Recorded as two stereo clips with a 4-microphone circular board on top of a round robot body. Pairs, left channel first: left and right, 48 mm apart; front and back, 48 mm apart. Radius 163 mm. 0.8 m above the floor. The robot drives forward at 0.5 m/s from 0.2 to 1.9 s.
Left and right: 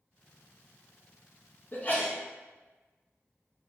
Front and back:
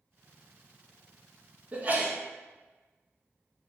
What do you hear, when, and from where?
1.7 s a sneeze: 125° left, 0.8 m; by 2.1 s 130° left, 0.9 m